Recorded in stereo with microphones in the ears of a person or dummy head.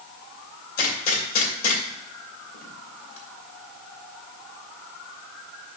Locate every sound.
0.8 s a gunshot: 50° left (ahead or behind), 2.5 m